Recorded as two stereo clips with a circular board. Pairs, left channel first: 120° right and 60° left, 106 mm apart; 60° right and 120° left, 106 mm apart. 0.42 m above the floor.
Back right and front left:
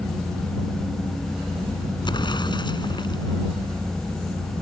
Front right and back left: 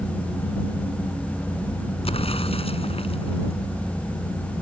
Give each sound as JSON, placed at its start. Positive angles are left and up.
{"t": 2.0, "sound": "an explosion", "azimuth_deg": -80}